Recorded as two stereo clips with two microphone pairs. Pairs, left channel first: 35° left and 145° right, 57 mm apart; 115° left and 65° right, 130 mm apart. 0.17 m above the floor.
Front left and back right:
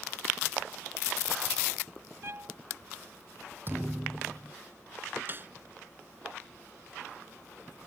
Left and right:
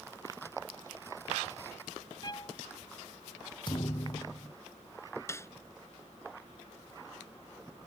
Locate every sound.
2.2 s a violin: 170° left
3.7 s a thud: 165° left
5.3 s a snare drum: 175° left